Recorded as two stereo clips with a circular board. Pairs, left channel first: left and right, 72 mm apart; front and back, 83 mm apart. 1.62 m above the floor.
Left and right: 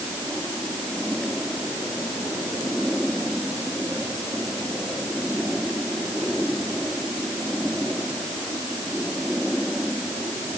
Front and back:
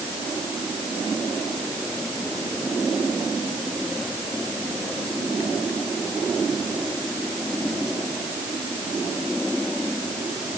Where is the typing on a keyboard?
No typing on a keyboard in this recording.